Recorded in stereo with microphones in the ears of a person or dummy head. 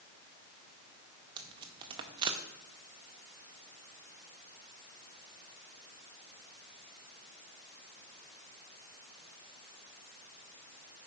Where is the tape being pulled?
25° right (ahead or behind), 0.5 m.